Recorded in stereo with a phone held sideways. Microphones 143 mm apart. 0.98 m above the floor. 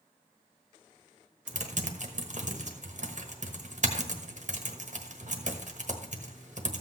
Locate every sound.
1.5 s typing on a keyboard: 60° right (ahead or behind), 1.2 m